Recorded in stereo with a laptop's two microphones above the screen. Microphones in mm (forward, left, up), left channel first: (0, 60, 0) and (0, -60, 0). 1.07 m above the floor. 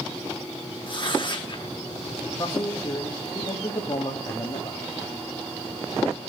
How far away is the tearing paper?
About 1.2 m.